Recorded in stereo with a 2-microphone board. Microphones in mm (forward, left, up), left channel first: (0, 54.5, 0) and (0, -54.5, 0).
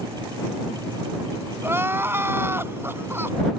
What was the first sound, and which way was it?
Crying, 20° right (ahead or behind).